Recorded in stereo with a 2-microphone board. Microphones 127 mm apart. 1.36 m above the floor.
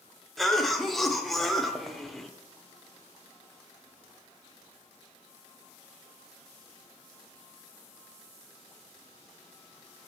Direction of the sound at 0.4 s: Centre (ahead or behind).